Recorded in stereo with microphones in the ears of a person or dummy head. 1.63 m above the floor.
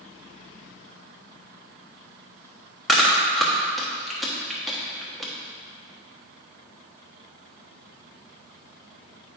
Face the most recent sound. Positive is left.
turn(degrees=-5)  # may be behind; listen again after turning